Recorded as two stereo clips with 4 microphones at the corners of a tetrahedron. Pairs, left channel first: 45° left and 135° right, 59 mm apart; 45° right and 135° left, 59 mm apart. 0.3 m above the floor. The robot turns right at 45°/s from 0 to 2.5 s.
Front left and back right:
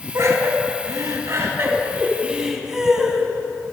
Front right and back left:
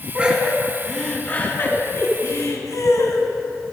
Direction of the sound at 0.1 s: 160° right.